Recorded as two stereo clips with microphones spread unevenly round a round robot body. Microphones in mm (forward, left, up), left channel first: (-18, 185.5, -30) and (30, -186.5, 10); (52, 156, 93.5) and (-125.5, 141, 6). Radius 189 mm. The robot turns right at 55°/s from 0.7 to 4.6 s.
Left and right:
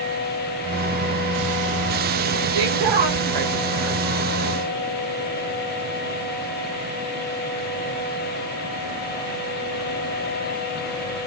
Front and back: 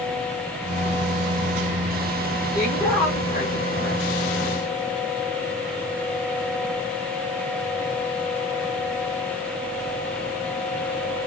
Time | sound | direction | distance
2.5 | a woman speaking | 110° right | 1.3 m